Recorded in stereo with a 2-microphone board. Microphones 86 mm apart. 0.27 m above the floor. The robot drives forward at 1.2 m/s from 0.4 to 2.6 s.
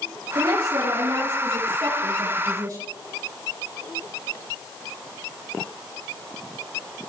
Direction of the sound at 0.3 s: 70° right (ahead or behind).